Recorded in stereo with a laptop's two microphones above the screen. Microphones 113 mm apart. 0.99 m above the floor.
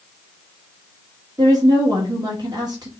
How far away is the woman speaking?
About 1.2 m.